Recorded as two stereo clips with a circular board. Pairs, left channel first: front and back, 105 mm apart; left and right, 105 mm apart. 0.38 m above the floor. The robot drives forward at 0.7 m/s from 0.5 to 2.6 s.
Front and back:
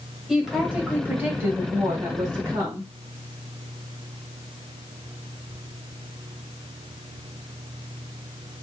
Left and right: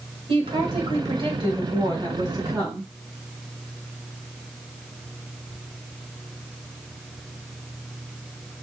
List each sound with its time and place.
0.3 s a woman speaking: 95° right, 1.9 m; by 2.9 s 135° right, 2.5 m